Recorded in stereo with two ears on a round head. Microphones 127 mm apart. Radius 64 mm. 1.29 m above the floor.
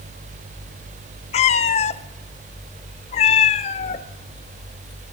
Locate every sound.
1.3 s a cat meowing: 45° left (ahead or behind), 0.6 m